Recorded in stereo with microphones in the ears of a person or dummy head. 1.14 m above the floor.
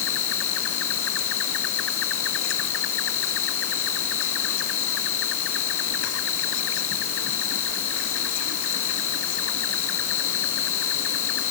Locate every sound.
0.0 s an insect: 75° left (ahead or behind)